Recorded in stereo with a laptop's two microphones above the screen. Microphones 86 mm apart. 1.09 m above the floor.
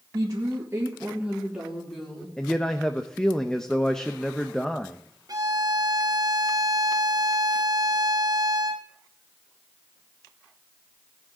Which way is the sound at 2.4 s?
5° left (ahead or behind).